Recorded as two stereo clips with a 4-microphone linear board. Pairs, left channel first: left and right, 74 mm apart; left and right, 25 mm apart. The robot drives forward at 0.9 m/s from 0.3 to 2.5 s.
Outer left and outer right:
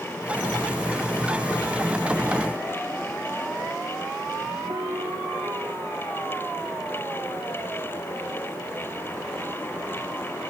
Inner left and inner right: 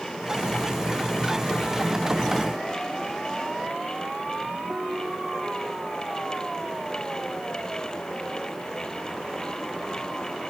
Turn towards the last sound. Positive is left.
turn(degrees=-60)  # may be behind; listen again after turning